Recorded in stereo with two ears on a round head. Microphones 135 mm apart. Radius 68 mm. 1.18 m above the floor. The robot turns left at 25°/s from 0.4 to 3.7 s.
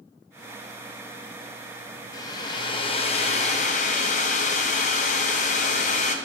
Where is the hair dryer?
155° left, 0.5 m; by 6.2 s 115° left, 0.5 m.